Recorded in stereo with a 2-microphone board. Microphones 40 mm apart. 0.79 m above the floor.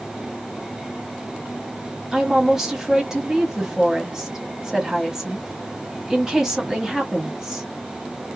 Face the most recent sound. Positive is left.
turn(degrees=-10)  # may be behind; listen again after turning